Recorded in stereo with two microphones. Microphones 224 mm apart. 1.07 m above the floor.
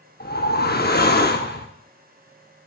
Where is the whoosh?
45° left (ahead or behind), 0.8 m.